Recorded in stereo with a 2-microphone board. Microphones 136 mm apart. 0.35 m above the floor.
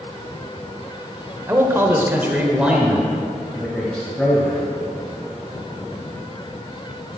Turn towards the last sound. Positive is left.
turn(degrees=5)  # may be behind; listen again after turning